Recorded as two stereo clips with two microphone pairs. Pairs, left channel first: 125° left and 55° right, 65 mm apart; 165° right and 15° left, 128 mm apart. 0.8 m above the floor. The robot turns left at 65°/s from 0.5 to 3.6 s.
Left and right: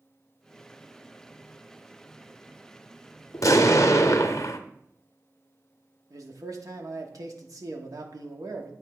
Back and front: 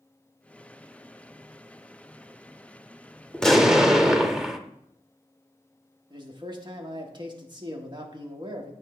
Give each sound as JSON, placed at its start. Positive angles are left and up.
{"t": 3.3, "sound": "an explosion", "azimuth_deg": 120, "distance_m": 0.6}
{"t": 6.1, "sound": "a man speaking", "azimuth_deg": -35, "distance_m": 1.2}